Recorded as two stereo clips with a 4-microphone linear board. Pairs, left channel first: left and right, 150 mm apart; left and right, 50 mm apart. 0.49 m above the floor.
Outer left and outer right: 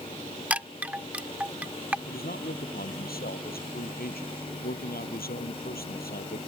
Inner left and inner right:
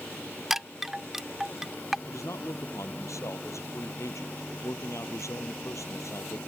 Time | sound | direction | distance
0.5 | a chime | 10° right (ahead or behind) | ?
2.1 | a man speaking | 85° left | ?